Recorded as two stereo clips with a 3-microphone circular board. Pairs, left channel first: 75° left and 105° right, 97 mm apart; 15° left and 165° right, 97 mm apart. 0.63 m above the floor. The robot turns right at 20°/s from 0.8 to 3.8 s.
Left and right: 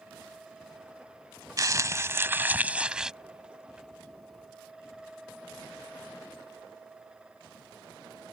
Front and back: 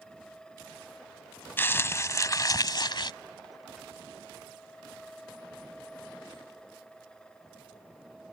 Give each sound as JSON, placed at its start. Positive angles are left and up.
{"t": 1.6, "sound": "crumpling", "azimuth_deg": -50}